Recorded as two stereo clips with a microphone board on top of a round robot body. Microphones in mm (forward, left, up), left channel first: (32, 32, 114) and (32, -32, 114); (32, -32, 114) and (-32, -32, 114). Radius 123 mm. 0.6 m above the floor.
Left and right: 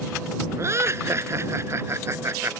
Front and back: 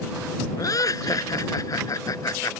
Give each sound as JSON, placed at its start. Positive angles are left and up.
{"t": 0.6, "sound": "laughter", "azimuth_deg": -40}